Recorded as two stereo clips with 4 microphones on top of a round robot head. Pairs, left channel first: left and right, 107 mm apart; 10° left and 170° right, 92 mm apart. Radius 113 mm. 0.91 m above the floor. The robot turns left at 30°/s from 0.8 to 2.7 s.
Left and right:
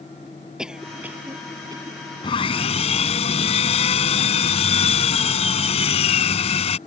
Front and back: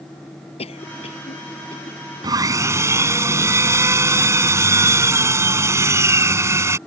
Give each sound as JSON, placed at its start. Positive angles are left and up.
{"t": 0.6, "sound": "a cough", "azimuth_deg": -5}
{"t": 2.2, "sound": "sawing", "azimuth_deg": 145}